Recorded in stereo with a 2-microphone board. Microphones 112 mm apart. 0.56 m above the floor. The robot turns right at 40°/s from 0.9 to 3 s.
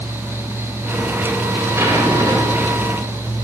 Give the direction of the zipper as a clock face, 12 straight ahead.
5 o'clock.